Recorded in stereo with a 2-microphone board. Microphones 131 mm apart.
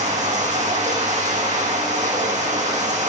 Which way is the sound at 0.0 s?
65° right (ahead or behind).